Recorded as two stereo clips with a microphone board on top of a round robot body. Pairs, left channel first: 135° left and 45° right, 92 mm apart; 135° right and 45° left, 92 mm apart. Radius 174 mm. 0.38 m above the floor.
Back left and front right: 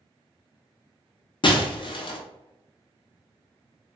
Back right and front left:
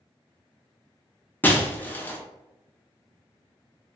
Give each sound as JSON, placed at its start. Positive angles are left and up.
{"t": 1.4, "sound": "breaking glass", "azimuth_deg": 155, "distance_m": 0.7}